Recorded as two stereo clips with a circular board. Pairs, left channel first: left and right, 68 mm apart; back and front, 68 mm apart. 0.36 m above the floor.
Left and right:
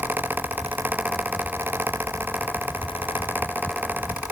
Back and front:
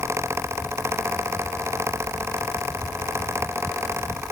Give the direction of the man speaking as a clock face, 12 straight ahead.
I don't hear a man speaking.